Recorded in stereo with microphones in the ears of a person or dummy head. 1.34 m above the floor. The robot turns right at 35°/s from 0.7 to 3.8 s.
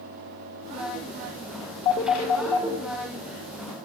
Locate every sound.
1.9 s a phone ringing: 25° left (ahead or behind), 0.6 m; by 2.8 s centre (ahead or behind), 0.6 m